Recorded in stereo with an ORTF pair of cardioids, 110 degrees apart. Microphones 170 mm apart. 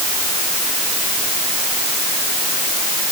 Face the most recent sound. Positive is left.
No sound to turn to.